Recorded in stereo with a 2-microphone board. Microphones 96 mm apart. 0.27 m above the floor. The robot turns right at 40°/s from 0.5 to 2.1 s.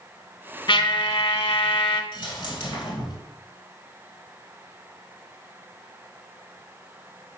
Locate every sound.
0.7 s a trumpet: 60° left, 0.6 m; by 2.0 s 115° left, 0.6 m
2.1 s a dropped coin: 55° left (ahead or behind), 1.5 m